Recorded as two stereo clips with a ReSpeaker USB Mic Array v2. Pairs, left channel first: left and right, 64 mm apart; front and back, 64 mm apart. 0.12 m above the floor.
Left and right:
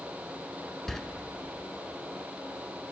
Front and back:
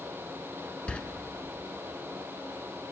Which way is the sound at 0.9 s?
20° left.